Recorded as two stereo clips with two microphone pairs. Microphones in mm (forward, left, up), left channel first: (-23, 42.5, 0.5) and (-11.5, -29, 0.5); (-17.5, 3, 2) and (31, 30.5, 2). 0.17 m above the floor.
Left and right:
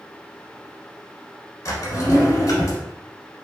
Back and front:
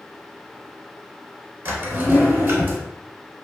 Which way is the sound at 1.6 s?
75° left.